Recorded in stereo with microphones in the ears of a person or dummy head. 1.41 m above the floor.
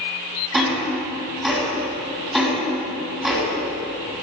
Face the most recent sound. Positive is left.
turn(degrees=0)  # may be behind; listen again after turning